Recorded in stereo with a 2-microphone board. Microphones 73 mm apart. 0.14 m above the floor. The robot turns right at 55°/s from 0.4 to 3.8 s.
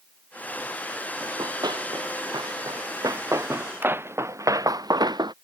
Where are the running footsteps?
50° right (ahead or behind); by 5.3 s 75° right (ahead or behind).